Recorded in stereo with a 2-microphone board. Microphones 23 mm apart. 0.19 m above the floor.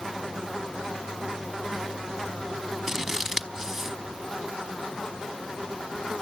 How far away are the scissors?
About 1.0 m.